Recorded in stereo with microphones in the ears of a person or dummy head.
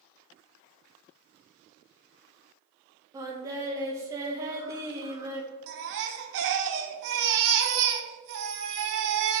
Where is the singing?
20° right (ahead or behind), 2.0 m.